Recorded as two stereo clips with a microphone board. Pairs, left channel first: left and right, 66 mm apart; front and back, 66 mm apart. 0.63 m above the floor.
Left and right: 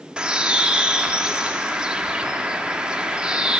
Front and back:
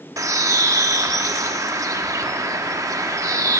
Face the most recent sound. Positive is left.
turn(degrees=-160)